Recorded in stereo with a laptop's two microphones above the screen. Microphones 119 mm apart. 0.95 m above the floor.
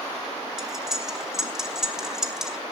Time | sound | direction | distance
0.6 | cutlery clinking | 5° right (ahead or behind) | 2 m